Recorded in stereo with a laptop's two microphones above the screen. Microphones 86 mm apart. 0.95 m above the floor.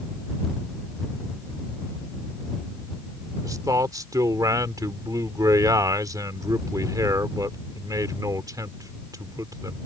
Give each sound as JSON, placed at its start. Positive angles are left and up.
{"t": 3.4, "sound": "a man speaking", "side_deg": -45}